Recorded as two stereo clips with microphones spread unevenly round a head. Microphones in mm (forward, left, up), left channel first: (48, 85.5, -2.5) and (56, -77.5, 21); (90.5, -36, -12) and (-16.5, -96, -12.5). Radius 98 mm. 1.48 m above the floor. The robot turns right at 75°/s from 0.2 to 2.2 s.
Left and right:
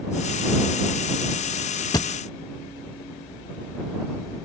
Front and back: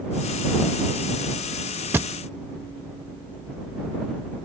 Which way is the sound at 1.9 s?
155° left.